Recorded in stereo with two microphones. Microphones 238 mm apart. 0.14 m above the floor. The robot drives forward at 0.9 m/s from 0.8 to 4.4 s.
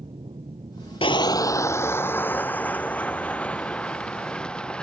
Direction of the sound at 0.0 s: 25° right (ahead or behind).